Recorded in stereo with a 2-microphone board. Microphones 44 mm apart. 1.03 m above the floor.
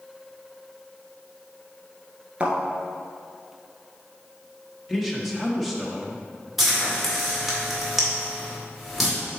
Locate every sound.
2.4 s a thud: 30° right (ahead or behind), 1.5 m
4.9 s a man speaking: centre (ahead or behind), 1.1 m
6.6 s frying: 5° right (ahead or behind), 2.5 m